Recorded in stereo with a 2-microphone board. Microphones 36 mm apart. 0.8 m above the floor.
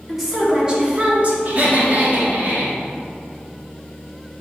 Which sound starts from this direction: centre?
A woman speaking, at 0.1 s.